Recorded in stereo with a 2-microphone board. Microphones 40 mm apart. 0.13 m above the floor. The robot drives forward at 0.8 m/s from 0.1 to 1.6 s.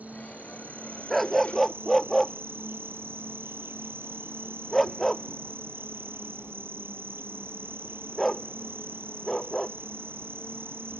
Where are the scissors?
No scissors in this recording.